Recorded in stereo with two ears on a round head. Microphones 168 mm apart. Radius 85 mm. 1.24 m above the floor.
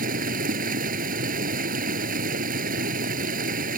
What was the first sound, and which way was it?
Running water, 45° right (ahead or behind).